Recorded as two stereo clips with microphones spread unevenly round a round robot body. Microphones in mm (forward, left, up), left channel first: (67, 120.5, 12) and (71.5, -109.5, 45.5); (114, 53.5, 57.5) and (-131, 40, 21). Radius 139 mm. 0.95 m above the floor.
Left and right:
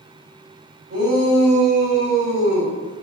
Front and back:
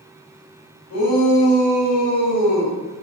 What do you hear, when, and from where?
0.9 s a shout: 45° right, 5.5 m; by 2.7 s 65° right, 5.5 m